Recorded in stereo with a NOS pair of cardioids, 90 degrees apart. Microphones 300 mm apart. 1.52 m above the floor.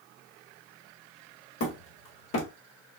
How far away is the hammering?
About 1.6 m.